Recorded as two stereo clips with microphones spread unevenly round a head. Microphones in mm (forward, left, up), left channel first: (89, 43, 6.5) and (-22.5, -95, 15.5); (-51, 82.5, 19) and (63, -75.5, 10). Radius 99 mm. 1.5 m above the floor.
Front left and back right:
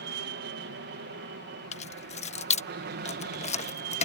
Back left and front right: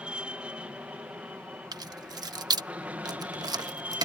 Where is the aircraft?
140° right; by 4.0 s 135° right.